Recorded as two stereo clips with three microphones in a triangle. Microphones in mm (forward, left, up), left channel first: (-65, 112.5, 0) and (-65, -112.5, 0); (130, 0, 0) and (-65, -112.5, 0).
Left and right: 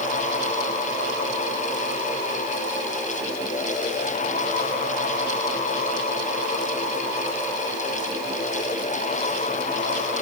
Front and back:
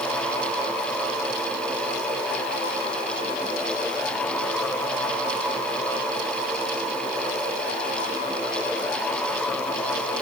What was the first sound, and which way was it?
Only background noise.